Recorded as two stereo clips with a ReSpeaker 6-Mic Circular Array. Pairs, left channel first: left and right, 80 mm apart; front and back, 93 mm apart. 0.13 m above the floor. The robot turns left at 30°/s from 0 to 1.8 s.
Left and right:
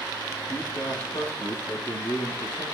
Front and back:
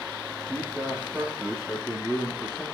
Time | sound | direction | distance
0.5 | a man speaking | 120° left | 6 m